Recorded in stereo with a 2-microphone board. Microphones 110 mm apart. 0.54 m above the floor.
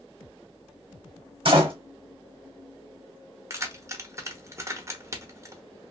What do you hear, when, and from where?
1.4 s a door slam: 50° right (ahead or behind), 1.2 m
3.5 s keys jangling: 25° right (ahead or behind), 0.7 m